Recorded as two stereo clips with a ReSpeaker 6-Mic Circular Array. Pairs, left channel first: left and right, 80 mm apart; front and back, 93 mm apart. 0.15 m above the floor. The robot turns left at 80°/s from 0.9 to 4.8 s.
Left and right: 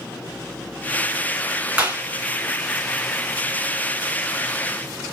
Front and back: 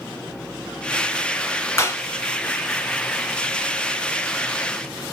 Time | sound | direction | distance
1.8 | a clap | 25° right | 0.9 m